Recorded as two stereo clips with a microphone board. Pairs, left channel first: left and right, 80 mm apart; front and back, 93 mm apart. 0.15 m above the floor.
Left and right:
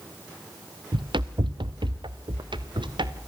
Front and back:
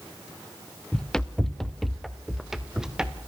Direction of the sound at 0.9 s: 80° right.